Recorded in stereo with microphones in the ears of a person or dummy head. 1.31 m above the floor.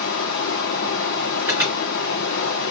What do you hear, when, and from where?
0.0 s running water: 50° left (ahead or behind), 1.1 m
1.4 s an alarm: 10° right (ahead or behind), 3.5 m